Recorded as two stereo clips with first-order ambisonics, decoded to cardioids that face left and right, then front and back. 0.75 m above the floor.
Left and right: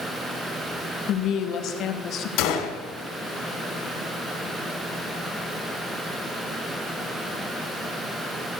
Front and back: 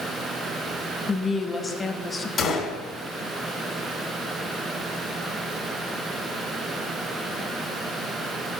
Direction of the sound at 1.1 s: 70° left.